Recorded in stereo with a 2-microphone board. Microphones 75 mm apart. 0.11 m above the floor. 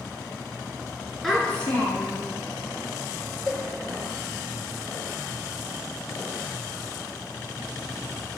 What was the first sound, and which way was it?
A child speaking, centre (ahead or behind).